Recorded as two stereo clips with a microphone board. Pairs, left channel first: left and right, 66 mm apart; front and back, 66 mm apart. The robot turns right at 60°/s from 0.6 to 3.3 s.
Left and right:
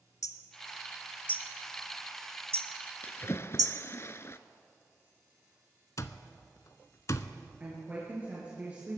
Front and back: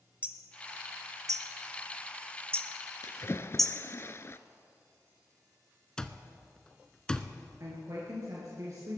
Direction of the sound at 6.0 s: 75° left.